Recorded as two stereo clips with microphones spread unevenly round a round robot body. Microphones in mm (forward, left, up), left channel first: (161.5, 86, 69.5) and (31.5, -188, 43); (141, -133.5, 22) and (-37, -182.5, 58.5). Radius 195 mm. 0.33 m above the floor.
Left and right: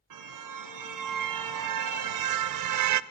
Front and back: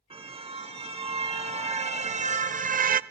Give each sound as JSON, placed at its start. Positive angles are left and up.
{"t": 0.1, "sound": "a car horn", "azimuth_deg": -100, "distance_m": 2.0}